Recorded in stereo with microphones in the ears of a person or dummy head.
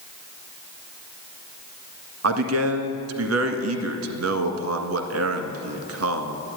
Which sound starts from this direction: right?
A man speaking, at 2.2 s.